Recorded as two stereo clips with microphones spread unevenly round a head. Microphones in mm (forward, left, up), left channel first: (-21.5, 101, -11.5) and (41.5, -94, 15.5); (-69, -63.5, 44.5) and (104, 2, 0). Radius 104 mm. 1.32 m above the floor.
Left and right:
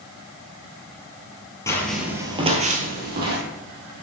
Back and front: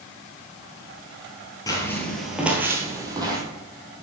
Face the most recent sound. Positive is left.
turn(degrees=-55)